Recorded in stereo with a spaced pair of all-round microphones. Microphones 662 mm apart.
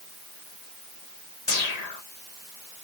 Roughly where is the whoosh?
Left.